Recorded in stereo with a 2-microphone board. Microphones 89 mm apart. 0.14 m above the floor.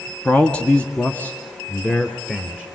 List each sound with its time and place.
0.2 s a man speaking: 10° left (ahead or behind), 1.4 m; by 2.6 s 20° left (ahead or behind), 2.5 m